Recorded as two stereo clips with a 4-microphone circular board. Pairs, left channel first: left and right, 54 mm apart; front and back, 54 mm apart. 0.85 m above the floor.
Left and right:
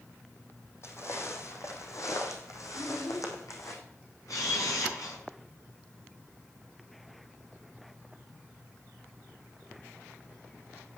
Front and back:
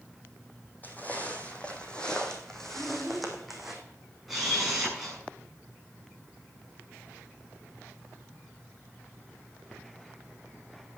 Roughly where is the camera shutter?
Left.